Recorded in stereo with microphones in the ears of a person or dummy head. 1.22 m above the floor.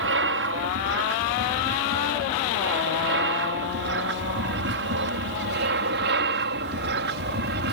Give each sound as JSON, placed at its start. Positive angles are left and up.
{"t": 0.0, "sound": "an aircraft", "side_deg": -60}